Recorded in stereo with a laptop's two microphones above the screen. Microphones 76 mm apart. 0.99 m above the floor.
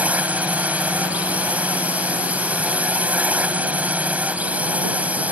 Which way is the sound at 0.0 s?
20° right (ahead or behind).